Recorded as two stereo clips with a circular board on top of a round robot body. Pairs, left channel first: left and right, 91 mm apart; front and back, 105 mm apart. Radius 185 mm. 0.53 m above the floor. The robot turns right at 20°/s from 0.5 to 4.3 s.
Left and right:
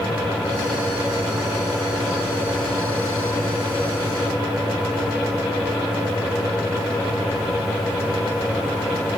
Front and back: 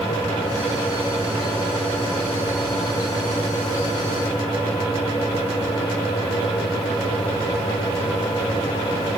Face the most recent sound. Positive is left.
No sound to turn to.